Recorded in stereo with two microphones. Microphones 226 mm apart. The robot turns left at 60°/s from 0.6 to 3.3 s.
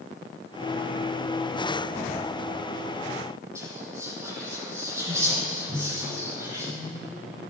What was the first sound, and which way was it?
Whispering, 15° right (ahead or behind).